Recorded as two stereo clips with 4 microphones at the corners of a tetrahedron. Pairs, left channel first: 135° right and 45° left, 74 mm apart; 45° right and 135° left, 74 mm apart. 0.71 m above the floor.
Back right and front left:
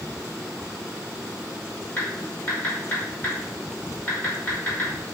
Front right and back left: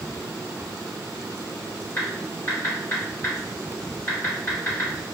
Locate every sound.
2.0 s typing on a keyboard: 85° right, 1.4 m